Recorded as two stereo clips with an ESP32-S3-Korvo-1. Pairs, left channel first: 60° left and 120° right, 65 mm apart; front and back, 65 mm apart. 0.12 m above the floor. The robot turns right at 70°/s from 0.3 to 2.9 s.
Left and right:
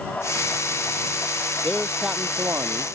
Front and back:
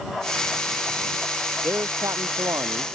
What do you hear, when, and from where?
1.6 s a man speaking: 140° left; by 2.9 s 135° right